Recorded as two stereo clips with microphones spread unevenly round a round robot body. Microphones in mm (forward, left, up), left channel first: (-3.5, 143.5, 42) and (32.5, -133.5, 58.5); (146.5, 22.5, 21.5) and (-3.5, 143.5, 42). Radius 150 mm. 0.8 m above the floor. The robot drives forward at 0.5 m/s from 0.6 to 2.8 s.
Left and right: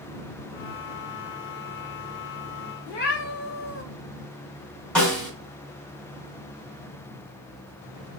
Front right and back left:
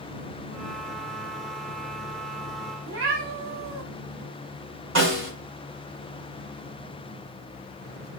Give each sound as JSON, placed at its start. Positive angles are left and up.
{"t": 2.9, "sound": "a cat meowing", "azimuth_deg": 155, "distance_m": 0.5}
{"t": 5.0, "sound": "a snare drum", "azimuth_deg": -175, "distance_m": 1.2}